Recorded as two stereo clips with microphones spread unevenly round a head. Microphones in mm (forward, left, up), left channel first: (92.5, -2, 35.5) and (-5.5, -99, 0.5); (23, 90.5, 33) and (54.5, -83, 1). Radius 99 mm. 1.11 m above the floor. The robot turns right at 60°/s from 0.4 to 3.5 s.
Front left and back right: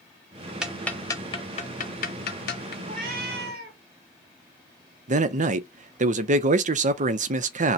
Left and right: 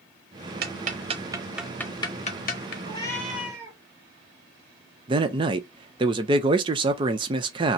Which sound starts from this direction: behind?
A cat meowing, at 2.8 s.